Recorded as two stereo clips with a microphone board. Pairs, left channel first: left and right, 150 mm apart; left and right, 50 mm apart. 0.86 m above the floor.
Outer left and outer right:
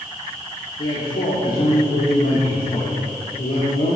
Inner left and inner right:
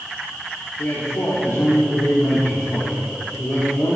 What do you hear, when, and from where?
0.8 s a man speaking: 65° left (ahead or behind), 2 m